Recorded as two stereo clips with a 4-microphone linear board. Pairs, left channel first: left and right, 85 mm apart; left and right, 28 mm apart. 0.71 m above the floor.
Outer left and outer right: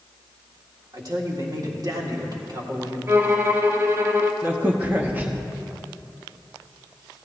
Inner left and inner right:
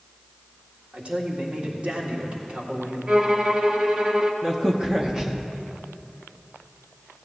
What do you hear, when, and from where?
0.9 s a man speaking: 50° right (ahead or behind), 1.8 m
3.1 s a violin: 30° right (ahead or behind), 0.8 m
4.4 s a crack: 25° right (ahead or behind), 0.9 m